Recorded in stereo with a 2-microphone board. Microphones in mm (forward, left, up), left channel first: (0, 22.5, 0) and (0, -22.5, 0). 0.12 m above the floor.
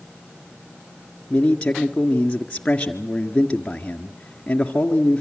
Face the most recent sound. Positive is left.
turn(degrees=20)  # may be behind; listen again after turning